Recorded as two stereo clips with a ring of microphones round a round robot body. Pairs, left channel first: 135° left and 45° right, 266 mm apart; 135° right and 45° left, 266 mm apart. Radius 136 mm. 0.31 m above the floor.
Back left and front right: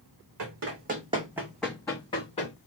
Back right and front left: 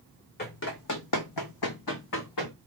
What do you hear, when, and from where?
0.4 s running footsteps: 80° right, 0.9 m; by 2.5 s 160° right, 1.4 m